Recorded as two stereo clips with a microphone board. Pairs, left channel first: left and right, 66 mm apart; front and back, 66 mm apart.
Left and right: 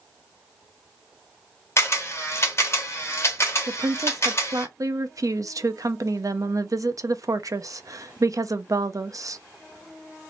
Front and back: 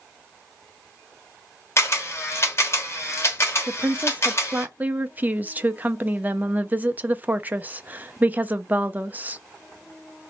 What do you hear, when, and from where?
1.8 s a camera shutter: 45° left, 1.2 m
3.7 s a woman speaking: 115° right, 0.5 m